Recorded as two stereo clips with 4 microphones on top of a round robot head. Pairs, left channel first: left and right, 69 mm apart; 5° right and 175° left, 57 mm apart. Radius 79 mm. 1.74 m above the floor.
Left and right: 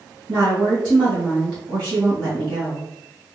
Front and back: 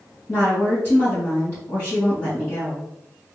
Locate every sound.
0.3 s a woman speaking: 70° right, 2.5 m